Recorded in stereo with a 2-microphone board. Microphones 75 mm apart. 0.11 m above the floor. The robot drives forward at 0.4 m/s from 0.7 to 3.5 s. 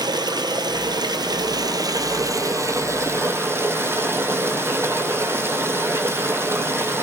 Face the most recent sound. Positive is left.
turn(degrees=-35)  # may be behind; listen again after turning